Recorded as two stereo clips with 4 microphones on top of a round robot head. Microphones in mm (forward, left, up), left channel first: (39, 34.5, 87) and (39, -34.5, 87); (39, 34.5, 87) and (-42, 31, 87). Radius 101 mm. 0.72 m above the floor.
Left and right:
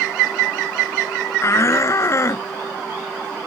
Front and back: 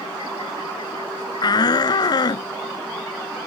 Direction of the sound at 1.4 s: 40° left.